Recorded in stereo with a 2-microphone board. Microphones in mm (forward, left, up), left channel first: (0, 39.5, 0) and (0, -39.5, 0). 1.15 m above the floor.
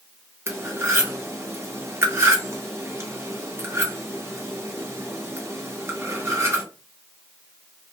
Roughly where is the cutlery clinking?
Right.